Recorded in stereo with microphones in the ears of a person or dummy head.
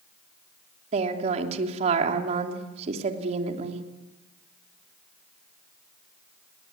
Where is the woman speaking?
40° right (ahead or behind), 3 m.